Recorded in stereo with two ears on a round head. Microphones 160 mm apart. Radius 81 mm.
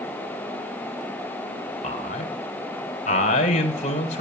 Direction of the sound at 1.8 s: 40° left (ahead or behind).